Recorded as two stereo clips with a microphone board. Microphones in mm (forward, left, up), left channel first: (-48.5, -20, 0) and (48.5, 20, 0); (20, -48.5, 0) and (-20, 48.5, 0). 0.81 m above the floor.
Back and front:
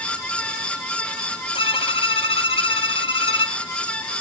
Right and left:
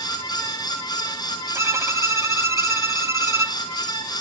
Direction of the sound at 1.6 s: 175° left.